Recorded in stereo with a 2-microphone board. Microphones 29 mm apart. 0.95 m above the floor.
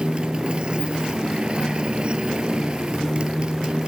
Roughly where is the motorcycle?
Right.